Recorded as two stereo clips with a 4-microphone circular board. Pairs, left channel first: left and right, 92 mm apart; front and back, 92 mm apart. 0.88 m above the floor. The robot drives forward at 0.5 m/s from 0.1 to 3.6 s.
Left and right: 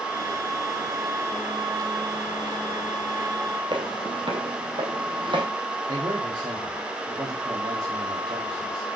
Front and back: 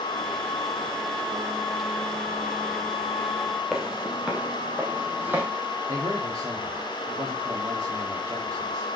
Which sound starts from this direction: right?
Footsteps, at 3.7 s.